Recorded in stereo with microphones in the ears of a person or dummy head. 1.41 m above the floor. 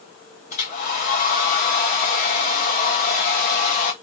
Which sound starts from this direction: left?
A hair dryer, at 0.5 s.